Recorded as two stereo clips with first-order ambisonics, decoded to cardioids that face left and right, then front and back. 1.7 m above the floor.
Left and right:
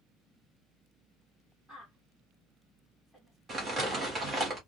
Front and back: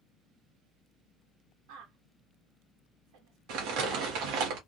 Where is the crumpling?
160° right, 1.5 m.